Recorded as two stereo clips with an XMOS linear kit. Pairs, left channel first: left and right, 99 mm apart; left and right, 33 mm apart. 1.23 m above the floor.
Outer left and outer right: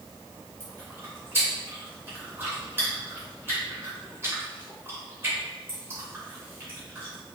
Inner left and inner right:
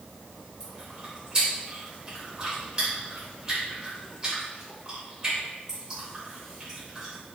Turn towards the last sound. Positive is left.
turn(degrees=-25)  # may be behind; listen again after turning